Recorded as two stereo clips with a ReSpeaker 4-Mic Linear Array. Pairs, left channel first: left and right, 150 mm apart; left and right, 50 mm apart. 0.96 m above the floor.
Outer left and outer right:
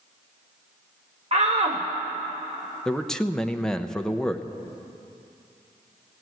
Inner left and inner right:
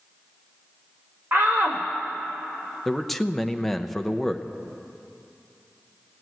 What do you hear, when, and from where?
1.3 s a shout: 45° right (ahead or behind), 0.8 m
2.9 s a man speaking: 5° left (ahead or behind), 0.6 m